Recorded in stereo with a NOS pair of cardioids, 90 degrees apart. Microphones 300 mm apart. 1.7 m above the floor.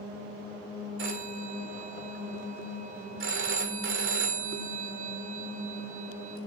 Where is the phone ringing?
45° right, 4 m.